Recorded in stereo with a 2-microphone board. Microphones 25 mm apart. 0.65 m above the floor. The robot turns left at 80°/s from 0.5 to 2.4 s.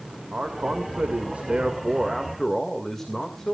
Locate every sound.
0.3 s a man speaking: 45° right, 1.9 m; by 3.5 s 165° left, 1.9 m